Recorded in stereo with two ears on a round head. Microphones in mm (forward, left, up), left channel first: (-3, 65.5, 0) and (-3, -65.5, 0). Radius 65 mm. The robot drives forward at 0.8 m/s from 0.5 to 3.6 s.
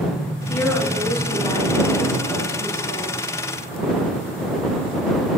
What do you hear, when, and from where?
0.5 s a woman speaking: 15° left (ahead or behind), 2 m; by 3.2 s 10° left (ahead or behind), 4 m